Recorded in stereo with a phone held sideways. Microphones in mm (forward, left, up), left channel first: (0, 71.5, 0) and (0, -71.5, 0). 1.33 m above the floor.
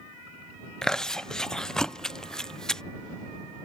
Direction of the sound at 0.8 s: 5° left (ahead or behind).